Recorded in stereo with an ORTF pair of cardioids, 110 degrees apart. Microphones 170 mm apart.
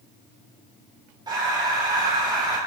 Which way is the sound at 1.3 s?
25° right.